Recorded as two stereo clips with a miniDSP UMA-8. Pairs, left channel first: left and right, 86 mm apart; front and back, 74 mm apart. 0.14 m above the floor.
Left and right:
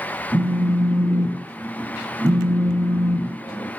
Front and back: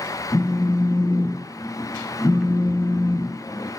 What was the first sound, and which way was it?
A phone buzzing, 45° right.